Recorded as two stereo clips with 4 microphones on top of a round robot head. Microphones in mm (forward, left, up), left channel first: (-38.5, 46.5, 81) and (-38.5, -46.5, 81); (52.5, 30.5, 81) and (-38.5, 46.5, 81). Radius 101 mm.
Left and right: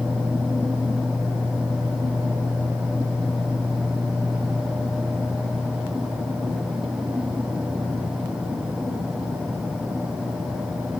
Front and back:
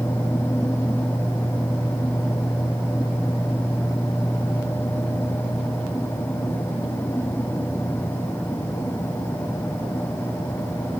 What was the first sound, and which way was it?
Only background noise.